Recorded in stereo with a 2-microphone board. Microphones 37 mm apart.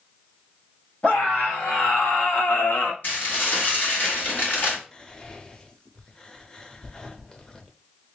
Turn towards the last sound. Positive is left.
turn(degrees=20)  # may be behind; listen again after turning